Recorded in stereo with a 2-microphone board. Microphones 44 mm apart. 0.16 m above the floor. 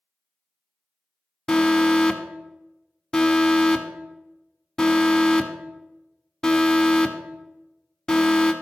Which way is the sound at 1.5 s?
15° left (ahead or behind).